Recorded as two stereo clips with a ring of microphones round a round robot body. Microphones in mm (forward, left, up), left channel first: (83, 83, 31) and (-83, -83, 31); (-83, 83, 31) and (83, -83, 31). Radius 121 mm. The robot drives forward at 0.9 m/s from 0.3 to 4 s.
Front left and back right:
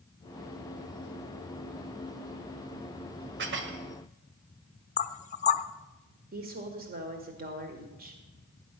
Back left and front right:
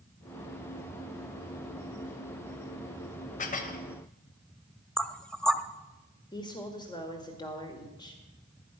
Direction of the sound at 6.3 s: 160° right.